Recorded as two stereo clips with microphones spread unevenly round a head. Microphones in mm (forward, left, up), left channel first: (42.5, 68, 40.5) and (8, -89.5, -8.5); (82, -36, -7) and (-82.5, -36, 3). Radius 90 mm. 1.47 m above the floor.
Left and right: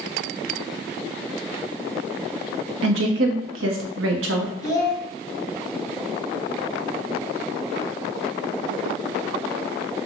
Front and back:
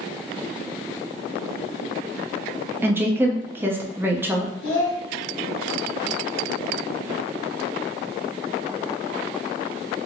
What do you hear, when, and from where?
2.8 s a woman speaking: 105° right, 0.7 m
4.6 s a child speaking: 10° left, 1.2 m